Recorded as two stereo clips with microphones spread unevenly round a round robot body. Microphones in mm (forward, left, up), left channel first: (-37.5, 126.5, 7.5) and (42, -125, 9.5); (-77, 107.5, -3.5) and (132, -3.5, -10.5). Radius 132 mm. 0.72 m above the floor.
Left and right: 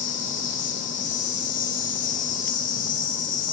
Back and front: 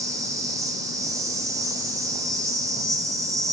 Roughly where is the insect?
Ahead left.